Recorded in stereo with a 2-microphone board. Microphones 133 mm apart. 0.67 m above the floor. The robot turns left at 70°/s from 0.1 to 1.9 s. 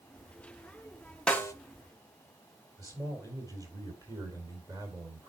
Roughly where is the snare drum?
Centre.